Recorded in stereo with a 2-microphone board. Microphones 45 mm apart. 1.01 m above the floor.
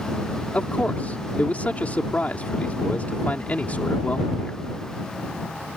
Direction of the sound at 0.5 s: 35° left (ahead or behind).